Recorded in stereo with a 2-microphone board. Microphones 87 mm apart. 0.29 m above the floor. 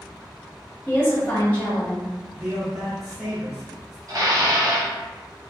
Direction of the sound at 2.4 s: 5° right (ahead or behind).